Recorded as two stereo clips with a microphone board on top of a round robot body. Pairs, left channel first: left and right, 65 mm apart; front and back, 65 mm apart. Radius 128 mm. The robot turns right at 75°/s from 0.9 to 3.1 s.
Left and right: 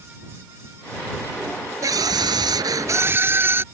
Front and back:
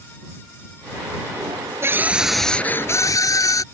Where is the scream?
130° right; by 3.6 s 35° right.